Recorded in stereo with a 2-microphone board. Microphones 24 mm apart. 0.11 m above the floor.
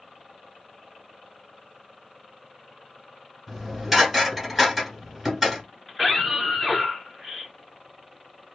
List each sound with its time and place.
3.5 s dishes clattering: 5° right (ahead or behind), 1.2 m
5.9 s a scream: 10° left (ahead or behind), 1.9 m